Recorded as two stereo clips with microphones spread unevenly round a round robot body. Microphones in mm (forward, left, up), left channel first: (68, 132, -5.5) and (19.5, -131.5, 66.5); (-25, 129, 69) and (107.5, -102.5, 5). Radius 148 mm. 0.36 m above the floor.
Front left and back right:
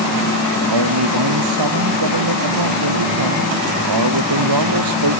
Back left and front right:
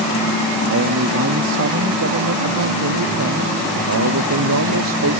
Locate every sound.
0.7 s a man speaking: 115° right; by 5.2 s 100° right